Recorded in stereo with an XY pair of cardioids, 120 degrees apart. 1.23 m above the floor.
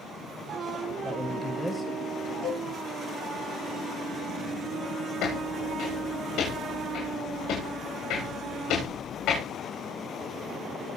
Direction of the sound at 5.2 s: 70° left.